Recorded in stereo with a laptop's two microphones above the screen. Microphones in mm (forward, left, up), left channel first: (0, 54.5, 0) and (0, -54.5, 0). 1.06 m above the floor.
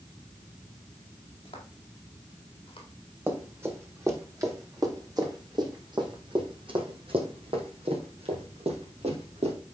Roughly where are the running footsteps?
Centre.